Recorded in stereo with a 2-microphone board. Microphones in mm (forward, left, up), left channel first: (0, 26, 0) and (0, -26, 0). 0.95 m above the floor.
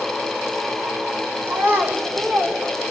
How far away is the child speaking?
About 2 m.